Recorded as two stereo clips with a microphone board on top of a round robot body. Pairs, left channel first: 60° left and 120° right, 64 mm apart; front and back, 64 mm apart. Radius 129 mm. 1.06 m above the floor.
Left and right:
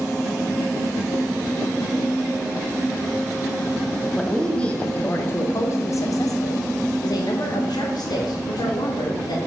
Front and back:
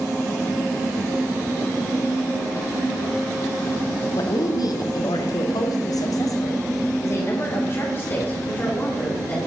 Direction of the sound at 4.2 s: 25° right.